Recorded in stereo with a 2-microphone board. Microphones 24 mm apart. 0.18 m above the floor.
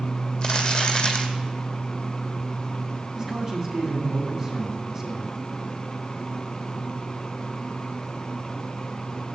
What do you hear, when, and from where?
0.4 s crumpling: 30° left (ahead or behind), 1.7 m
3.1 s a man speaking: 20° right (ahead or behind), 1.6 m